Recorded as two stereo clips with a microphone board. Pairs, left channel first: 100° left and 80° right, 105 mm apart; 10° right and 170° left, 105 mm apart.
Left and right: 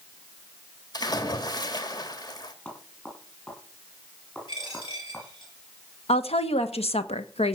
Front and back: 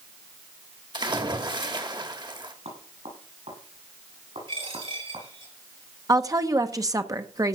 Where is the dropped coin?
140° left, 7 m.